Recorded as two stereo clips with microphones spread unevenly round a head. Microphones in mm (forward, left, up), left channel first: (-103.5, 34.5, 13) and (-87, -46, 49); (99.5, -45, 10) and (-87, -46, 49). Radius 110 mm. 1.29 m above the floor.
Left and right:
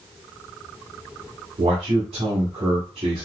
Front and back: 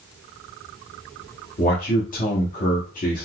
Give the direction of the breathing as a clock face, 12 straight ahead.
No breathing in this recording.